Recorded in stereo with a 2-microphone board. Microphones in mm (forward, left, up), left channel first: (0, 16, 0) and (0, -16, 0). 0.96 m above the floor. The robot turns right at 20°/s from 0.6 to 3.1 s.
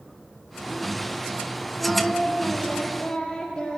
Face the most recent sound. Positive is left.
turn(degrees=30)  # may be behind; listen again after turning